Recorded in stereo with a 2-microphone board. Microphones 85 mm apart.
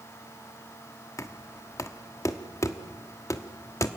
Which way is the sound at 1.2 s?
35° left (ahead or behind).